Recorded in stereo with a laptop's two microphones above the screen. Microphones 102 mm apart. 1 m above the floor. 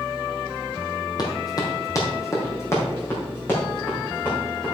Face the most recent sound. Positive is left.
turn(degrees=20)  # may be behind; listen again after turning